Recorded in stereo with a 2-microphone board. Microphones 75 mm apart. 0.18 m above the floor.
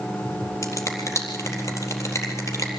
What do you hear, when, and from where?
0.6 s a finger snap: 40° left (ahead or behind), 4 m